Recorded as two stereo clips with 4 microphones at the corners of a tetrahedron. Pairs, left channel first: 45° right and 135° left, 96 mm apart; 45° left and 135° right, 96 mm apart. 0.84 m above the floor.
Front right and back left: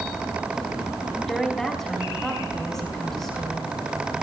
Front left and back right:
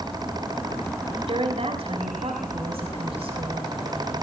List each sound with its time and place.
1.3 s a woman speaking: 135° right, 3.5 m